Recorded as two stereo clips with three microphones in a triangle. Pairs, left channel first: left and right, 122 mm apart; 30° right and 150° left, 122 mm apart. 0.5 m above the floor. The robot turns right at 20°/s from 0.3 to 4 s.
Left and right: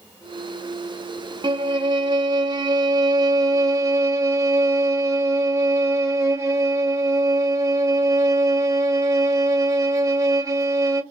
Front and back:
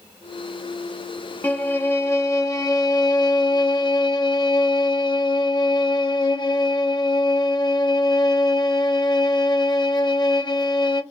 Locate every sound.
1.4 s a violin: 95° right, 0.6 m; by 11.0 s 40° right, 0.6 m